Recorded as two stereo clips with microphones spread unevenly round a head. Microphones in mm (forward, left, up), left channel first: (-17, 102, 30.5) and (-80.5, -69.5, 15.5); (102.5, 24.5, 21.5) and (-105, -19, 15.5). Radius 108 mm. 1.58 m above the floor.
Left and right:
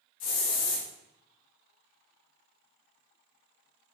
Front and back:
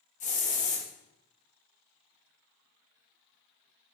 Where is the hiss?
70° left, 1.7 m.